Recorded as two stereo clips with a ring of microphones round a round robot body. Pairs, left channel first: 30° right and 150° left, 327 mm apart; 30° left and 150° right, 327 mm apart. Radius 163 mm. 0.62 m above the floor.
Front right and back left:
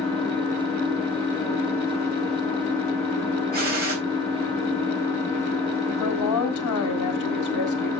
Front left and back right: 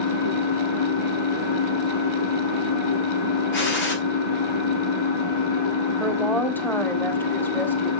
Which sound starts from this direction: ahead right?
A woman speaking, at 6.0 s.